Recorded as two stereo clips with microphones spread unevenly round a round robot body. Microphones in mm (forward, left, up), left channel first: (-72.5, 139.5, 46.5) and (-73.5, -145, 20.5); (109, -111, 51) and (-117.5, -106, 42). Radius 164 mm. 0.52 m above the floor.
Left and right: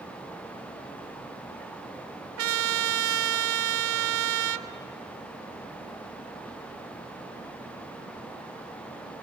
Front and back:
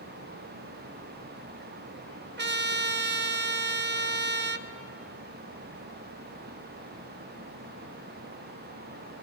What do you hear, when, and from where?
2.4 s a trumpet: 135° right, 0.7 m